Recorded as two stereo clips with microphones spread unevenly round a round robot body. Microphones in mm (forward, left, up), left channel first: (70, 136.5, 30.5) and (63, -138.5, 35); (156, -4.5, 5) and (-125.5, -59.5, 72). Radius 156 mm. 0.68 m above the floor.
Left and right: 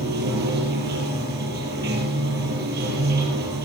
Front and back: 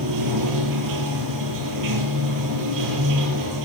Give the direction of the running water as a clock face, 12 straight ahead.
5 o'clock.